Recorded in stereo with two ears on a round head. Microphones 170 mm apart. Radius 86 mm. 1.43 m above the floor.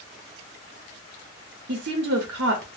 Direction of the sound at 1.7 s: 65° right (ahead or behind).